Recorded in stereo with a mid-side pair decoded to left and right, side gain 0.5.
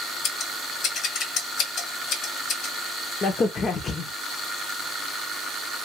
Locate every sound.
0.2 s scissors: 65° left, 1.5 m
3.2 s a crack: 45° left, 0.9 m